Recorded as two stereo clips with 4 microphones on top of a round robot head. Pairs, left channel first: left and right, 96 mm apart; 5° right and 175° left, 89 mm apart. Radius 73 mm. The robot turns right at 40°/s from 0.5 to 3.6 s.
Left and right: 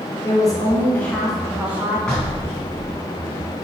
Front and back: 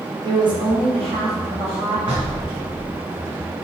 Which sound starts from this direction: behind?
Knocking, at 2.1 s.